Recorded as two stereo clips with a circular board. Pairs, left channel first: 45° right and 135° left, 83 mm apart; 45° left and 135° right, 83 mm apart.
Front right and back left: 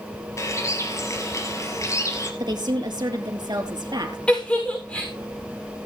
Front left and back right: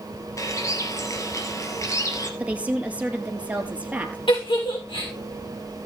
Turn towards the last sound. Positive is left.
turn(degrees=30)